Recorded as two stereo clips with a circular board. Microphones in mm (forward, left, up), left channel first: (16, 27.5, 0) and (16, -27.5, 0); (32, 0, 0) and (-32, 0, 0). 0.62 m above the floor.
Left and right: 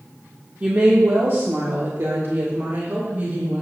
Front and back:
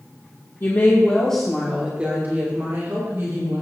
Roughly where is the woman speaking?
Ahead right.